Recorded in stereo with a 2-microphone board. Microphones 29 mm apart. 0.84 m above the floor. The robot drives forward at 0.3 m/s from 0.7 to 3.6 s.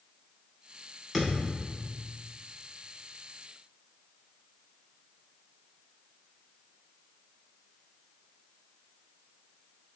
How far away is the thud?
About 1.0 m.